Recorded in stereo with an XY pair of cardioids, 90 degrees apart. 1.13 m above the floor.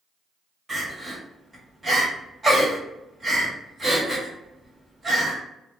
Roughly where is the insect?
I don't hear an insect.